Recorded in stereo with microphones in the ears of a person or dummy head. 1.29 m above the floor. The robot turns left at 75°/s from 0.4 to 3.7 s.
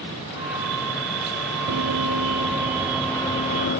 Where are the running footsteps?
80° right; by 3.8 s 50° left (ahead or behind).